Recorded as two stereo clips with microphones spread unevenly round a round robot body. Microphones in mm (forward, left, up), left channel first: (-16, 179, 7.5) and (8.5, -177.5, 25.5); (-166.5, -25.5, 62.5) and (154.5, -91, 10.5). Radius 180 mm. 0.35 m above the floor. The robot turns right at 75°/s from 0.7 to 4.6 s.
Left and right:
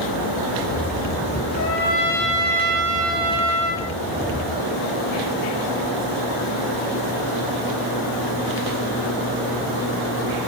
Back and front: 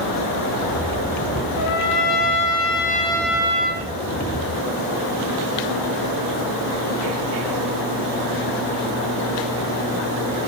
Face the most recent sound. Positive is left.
turn(degrees=0)